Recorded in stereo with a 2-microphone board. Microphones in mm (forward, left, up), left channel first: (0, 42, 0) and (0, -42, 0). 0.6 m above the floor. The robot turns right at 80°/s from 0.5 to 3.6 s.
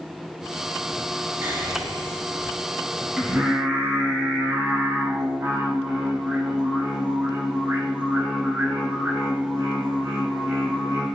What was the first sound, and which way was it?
Whispering, 150° right.